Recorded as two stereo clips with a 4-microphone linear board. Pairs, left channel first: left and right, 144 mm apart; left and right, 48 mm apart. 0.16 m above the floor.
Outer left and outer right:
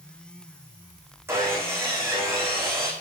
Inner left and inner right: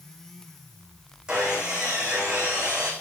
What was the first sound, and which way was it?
Sawing, 20° right (ahead or behind).